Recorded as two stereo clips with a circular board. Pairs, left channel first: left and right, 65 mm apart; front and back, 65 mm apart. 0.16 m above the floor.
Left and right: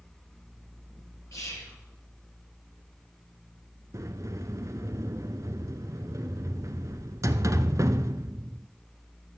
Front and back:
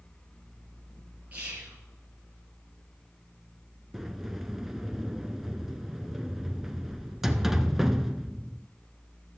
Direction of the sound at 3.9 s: 95° right.